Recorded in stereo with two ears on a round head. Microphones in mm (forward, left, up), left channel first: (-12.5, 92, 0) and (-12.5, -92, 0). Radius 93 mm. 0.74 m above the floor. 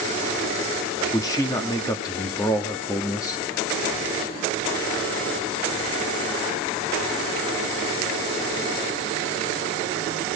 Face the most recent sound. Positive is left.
turn(degrees=15)  # may be behind; listen again after turning